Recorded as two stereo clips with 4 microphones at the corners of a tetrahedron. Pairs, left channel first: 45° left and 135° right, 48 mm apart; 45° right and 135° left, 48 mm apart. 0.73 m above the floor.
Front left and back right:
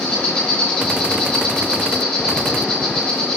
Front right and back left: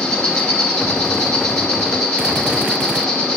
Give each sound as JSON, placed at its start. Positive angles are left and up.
{"t": 0.0, "sound": "an insect", "azimuth_deg": 25, "distance_m": 2.0}